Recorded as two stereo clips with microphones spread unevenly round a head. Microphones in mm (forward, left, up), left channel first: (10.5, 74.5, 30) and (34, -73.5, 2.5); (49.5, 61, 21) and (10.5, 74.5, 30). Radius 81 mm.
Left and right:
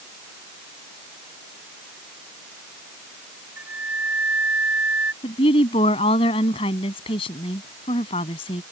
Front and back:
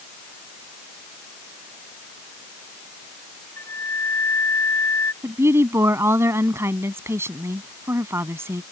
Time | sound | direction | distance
3.6 | a flute | straight ahead | ?
5.2 | a woman speaking | 155° left | ?